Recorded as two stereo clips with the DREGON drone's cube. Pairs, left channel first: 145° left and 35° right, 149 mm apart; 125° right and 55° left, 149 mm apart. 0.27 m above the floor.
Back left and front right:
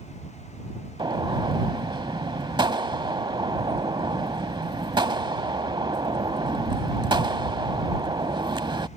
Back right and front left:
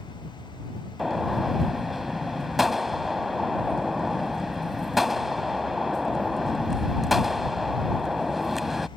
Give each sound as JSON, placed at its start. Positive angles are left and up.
{"t": 1.0, "sound": "a gunshot", "azimuth_deg": -30}